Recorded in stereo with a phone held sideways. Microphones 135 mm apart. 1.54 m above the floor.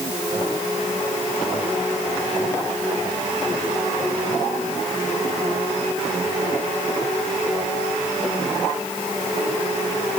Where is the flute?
I don't hear a flute.